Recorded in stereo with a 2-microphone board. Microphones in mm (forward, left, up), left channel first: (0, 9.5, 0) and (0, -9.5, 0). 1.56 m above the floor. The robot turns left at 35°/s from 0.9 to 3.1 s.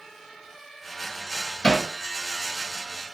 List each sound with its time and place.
1.6 s hammering: 55° left (ahead or behind), 1.6 m; by 1.9 s 50° left (ahead or behind), 1.6 m